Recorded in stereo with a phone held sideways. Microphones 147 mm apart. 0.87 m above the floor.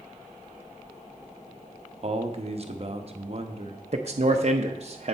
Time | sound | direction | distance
2.0 | a man speaking | 45° right (ahead or behind) | 0.9 m
3.9 | a man speaking | 50° right (ahead or behind) | 0.6 m